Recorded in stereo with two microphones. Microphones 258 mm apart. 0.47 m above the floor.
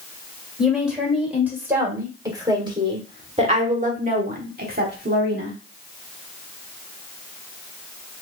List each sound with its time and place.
0.6 s a woman speaking: centre (ahead or behind), 2.5 m; by 5.6 s 40° right (ahead or behind), 1.5 m